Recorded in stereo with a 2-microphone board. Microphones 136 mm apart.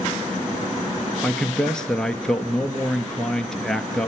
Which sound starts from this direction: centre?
A man speaking, at 1.2 s.